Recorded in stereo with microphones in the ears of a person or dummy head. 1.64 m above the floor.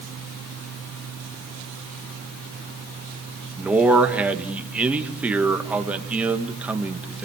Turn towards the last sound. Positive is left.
turn(degrees=-10)  # may be behind; listen again after turning